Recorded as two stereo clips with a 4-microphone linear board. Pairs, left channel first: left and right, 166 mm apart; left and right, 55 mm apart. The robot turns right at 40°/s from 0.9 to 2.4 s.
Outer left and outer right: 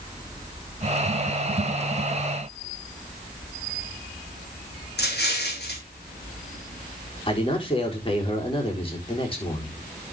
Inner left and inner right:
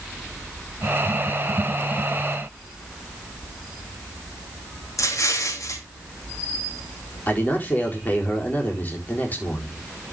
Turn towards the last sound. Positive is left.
turn(degrees=35)  # may be behind; listen again after turning